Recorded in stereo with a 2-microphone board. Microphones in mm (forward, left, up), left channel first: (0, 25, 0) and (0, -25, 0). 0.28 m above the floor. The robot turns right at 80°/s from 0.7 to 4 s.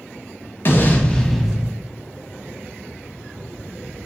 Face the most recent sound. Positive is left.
turn(degrees=25)